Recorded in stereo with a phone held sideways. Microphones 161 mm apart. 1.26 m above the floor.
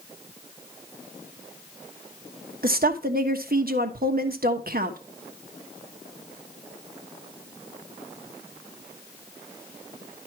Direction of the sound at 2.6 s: 65° right (ahead or behind).